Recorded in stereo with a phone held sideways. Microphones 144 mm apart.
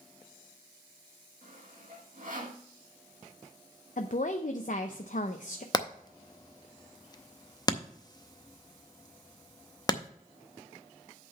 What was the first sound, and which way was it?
Sawing, 65° right (ahead or behind).